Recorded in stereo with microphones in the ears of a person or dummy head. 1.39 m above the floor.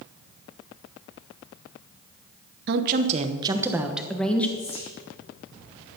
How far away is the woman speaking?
About 1.0 m.